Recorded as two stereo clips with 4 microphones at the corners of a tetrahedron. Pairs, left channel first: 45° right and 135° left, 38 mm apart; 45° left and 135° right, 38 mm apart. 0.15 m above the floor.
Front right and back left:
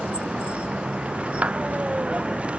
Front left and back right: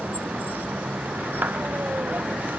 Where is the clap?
170° right.